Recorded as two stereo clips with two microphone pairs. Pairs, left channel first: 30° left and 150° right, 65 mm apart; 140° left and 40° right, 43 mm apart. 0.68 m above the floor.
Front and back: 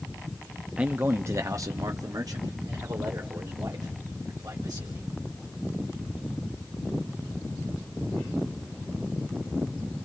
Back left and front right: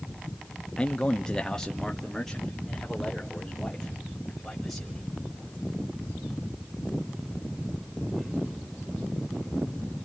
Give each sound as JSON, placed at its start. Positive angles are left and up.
{"t": 0.8, "sound": "a man speaking", "azimuth_deg": 170, "distance_m": 0.6}